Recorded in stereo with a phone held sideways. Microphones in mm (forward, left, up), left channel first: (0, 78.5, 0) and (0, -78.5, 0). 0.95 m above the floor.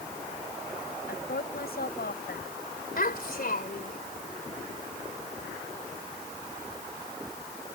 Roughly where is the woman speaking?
Left.